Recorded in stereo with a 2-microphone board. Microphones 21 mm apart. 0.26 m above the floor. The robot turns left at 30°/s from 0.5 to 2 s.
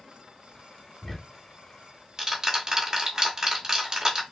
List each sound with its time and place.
1.0 s ticking: 5° left (ahead or behind), 1.4 m; by 4.2 s 25° right (ahead or behind), 1.4 m